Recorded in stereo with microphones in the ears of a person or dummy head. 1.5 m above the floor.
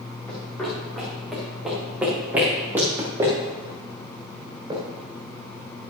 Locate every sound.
0.3 s running footsteps: 10° left (ahead or behind), 7 m; by 4.8 s 25° right (ahead or behind), 8.5 m